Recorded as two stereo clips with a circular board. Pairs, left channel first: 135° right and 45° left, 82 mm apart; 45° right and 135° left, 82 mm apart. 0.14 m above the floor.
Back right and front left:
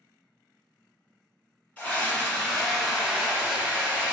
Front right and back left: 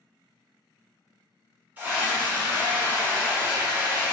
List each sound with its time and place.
1.8 s a scream: 175° left, 1.6 m; by 4.1 s 85° left, 1.7 m